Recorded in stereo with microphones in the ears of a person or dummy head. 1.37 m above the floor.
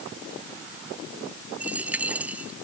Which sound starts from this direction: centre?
A dropped coin, at 1.6 s.